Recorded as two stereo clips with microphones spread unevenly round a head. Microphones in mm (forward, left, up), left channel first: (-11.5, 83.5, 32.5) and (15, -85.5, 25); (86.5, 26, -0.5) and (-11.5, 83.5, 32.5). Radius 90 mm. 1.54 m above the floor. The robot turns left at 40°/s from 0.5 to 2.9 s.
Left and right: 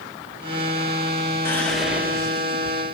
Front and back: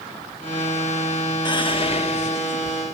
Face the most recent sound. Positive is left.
turn(degrees=-35)